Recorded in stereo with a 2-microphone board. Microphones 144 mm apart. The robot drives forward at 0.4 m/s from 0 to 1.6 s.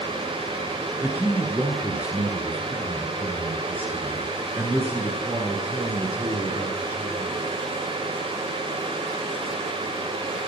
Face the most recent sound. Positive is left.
turn(degrees=-10)  # may be behind; listen again after turning